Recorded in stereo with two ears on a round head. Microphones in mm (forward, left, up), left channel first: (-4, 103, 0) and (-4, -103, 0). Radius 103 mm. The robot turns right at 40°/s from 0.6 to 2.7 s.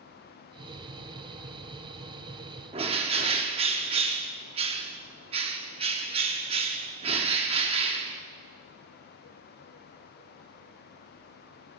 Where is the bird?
25° right (ahead or behind), 0.7 m.